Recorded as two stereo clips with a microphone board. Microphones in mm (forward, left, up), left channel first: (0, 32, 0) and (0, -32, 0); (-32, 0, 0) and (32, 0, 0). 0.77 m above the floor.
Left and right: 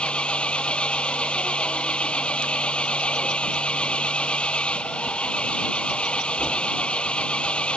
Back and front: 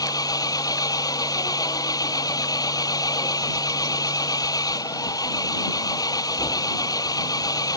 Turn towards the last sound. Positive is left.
turn(degrees=165)